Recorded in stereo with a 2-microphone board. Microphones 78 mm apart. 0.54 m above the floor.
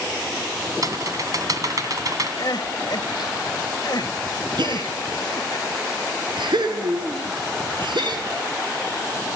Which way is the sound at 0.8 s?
50° right (ahead or behind).